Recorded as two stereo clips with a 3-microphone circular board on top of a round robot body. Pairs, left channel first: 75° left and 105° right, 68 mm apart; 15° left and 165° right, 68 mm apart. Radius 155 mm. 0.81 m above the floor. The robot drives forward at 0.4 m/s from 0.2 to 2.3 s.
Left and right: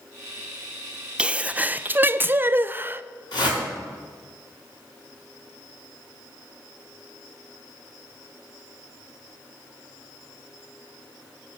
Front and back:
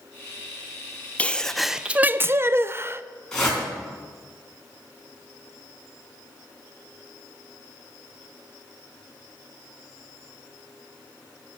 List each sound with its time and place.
1.2 s a sneeze: 40° right, 0.6 m; by 3.0 s 145° right, 0.6 m
3.3 s a whoosh: 95° left, 3.5 m